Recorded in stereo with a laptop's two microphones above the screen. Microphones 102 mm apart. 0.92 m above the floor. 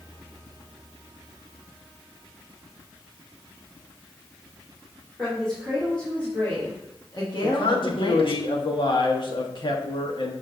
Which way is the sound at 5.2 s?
5° left (ahead or behind).